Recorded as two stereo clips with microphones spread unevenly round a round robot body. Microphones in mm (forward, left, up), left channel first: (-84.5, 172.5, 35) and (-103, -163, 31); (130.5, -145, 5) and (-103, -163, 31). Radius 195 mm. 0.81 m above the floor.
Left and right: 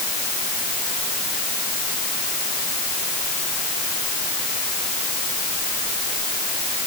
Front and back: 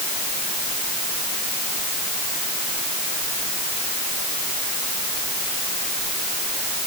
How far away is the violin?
No violin in this recording.